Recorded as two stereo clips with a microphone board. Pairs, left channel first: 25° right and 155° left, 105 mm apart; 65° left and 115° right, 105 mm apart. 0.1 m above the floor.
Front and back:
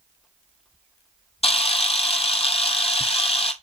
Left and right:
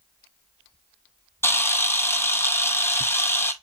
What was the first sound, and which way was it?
A camera shutter, straight ahead.